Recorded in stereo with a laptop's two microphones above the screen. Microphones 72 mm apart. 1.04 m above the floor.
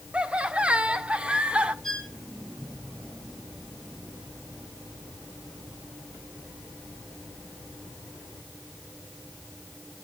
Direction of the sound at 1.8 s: 5° left (ahead or behind).